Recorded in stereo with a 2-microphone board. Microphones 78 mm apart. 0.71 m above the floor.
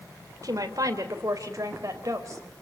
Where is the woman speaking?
50° right (ahead or behind), 3 m; by 2.4 s 40° right (ahead or behind), 4.5 m.